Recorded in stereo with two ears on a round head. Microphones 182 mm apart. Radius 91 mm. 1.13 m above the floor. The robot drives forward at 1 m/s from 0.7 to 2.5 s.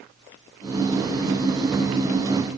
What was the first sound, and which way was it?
Only background noise.